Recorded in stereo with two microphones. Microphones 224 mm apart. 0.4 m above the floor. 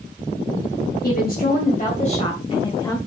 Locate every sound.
1.0 s a woman speaking: 45° left (ahead or behind), 2.5 m; by 3.0 s 20° left (ahead or behind), 2.5 m